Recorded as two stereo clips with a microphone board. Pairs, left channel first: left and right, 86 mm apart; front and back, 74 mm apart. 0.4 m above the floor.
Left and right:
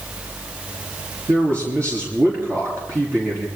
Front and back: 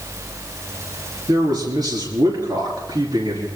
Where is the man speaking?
150° right, 5.5 m.